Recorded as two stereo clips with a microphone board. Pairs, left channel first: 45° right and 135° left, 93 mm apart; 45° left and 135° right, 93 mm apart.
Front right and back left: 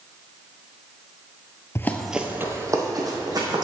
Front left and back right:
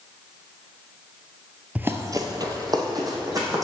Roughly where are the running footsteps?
Right.